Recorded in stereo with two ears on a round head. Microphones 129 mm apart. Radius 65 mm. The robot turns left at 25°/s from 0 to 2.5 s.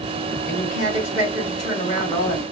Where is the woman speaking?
60° left, 3.5 m; by 2.4 s 15° left, 3.5 m.